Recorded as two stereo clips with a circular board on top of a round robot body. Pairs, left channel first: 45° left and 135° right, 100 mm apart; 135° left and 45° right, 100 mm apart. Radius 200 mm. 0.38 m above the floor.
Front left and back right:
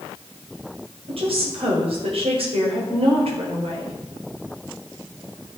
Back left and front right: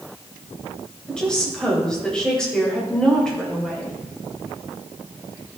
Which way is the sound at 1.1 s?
145° right.